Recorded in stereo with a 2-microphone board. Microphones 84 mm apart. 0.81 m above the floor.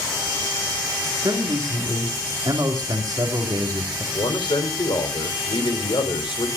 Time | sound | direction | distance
1.2 | a man speaking | 45° right (ahead or behind) | 2.5 m
4.1 | a man speaking | 70° left (ahead or behind) | 3 m